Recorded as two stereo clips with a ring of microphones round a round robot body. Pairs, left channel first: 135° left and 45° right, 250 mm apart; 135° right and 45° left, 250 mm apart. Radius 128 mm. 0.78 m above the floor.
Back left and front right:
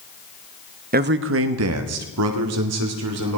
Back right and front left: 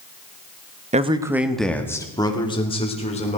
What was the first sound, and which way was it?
A man speaking, 5° right.